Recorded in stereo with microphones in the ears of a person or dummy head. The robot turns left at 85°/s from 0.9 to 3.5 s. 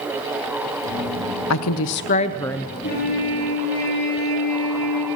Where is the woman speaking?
100° left, 0.7 m; by 2.7 s 5° right, 0.7 m.